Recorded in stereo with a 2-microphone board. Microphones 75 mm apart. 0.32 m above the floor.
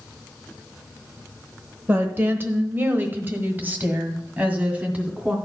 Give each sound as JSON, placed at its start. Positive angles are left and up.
{"t": 1.9, "sound": "a woman speaking", "side_deg": -30, "distance_m": 0.9}